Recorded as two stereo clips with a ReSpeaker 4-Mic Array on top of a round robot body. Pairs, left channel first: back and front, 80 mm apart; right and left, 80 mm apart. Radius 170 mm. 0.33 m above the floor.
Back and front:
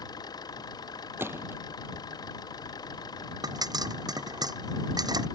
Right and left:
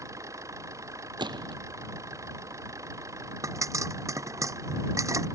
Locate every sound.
0.0 s an engine running: 140° left
1.2 s a gunshot: 65° left
3.4 s a pop: 40° left